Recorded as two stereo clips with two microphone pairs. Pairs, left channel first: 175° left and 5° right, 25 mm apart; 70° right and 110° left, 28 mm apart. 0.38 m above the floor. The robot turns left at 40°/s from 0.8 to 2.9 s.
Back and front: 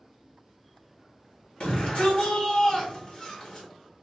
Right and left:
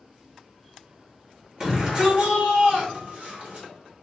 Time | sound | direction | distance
1.6 | a shout | 155° left | 1.8 m